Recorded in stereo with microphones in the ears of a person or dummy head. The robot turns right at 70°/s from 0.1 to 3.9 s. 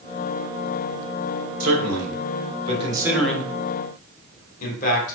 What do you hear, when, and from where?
1.6 s a man speaking: 65° right (ahead or behind), 1.4 m; by 5.2 s 45° left (ahead or behind), 1.4 m